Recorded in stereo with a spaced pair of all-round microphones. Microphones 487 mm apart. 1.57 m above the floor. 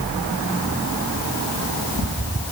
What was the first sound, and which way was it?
Only background noise.